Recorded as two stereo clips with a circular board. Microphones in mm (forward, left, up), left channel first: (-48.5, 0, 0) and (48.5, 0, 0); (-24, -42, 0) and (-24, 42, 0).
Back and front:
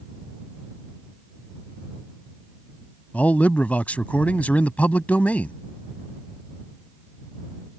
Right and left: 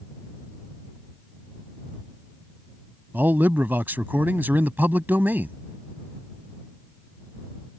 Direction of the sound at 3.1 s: 125° left.